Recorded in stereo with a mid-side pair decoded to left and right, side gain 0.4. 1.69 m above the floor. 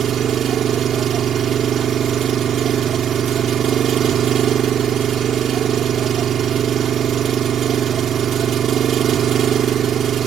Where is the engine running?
70° right.